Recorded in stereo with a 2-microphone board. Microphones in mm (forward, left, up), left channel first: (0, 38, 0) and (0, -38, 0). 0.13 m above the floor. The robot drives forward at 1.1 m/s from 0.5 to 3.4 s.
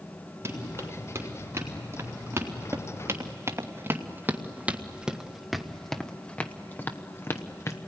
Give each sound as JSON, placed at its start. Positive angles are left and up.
{"t": 0.5, "sound": "running footsteps", "side_deg": -30, "distance_m": 6.0}